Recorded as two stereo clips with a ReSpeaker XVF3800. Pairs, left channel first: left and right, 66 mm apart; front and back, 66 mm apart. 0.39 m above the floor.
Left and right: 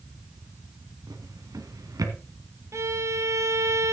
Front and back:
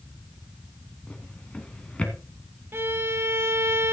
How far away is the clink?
No clink in this recording.